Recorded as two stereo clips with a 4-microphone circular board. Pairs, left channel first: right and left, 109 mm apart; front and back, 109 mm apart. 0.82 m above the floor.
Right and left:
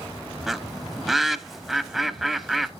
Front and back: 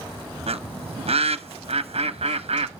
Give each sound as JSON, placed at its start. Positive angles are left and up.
{"t": 0.5, "sound": "a bird", "azimuth_deg": 175, "distance_m": 0.7}